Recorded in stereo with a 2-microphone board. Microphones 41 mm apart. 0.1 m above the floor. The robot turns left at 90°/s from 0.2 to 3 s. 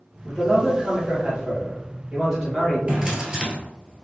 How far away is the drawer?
About 0.7 m.